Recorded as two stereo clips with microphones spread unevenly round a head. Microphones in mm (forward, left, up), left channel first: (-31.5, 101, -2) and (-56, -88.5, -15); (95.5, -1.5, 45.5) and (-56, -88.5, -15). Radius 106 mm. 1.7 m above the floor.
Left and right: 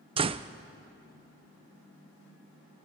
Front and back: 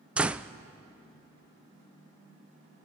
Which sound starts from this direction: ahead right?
A door slam, at 0.2 s.